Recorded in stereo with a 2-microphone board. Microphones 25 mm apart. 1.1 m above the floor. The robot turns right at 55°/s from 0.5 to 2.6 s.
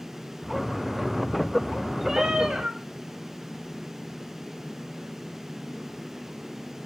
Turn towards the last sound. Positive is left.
turn(degrees=-120)